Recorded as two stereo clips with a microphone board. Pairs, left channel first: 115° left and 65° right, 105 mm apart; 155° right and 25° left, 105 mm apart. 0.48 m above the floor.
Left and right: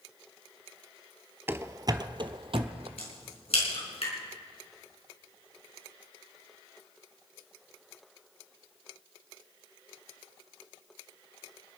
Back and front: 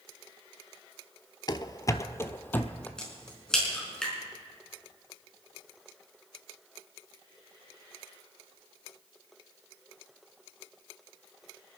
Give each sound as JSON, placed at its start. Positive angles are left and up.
{"t": 1.5, "sound": "running footsteps", "azimuth_deg": -130, "distance_m": 0.6}
{"t": 3.0, "sound": "a crack", "azimuth_deg": 120, "distance_m": 5.0}